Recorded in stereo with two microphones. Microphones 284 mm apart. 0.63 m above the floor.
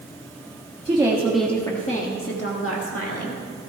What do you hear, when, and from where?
0.8 s a woman speaking: 20° right (ahead or behind), 1.3 m; by 3.4 s 60° left (ahead or behind), 2 m